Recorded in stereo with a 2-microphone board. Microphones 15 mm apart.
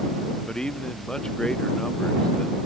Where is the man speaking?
50° left (ahead or behind).